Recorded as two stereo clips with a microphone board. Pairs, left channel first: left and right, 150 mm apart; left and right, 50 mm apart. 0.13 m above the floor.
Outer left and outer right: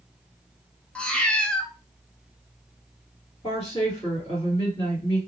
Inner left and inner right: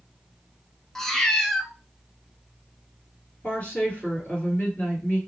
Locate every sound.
0.9 s a cat meowing: 10° left (ahead or behind), 0.5 m
3.4 s a woman speaking: 40° left (ahead or behind), 2.5 m